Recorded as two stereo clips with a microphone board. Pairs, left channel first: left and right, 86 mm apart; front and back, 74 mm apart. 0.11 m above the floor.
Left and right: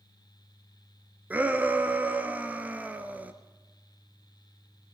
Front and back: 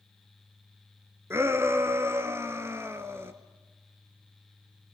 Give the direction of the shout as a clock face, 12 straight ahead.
5 o'clock.